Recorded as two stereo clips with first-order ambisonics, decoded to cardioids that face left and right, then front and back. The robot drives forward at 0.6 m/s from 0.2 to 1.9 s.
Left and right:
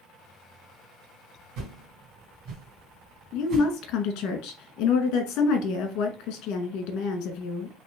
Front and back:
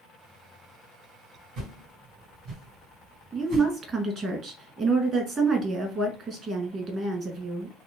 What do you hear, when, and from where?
1.6 s a whoosh: 125° right, 1.7 m; by 3.7 s 130° right, 1.8 m
3.3 s a woman speaking: 120° left, 1.1 m